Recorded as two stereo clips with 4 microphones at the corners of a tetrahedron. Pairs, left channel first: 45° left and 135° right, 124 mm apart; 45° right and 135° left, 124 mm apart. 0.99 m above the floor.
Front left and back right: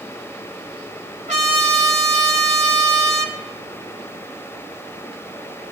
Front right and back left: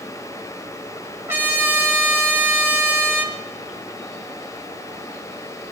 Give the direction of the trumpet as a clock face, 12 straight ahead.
5 o'clock.